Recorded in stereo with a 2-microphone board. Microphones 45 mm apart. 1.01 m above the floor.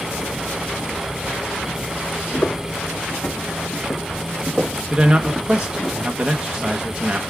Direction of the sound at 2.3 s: 45° left (ahead or behind).